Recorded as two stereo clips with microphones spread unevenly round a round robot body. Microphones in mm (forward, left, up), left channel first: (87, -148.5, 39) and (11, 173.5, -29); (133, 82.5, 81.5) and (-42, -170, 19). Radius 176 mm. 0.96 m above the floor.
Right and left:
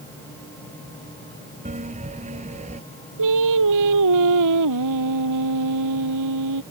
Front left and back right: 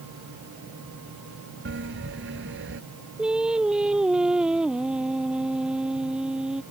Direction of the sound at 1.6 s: 175° left.